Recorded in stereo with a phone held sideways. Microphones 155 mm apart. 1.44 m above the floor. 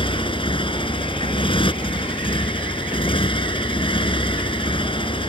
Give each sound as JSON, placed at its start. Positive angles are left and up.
{"t": 0.0, "sound": "a motorcycle", "side_deg": 35}